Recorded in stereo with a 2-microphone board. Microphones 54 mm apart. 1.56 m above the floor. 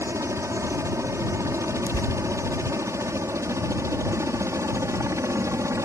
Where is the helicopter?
65° right (ahead or behind).